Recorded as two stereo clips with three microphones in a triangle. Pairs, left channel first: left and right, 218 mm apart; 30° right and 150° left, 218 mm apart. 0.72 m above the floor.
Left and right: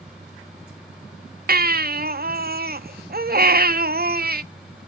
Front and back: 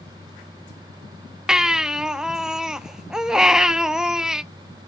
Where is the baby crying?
125° right, 0.5 m.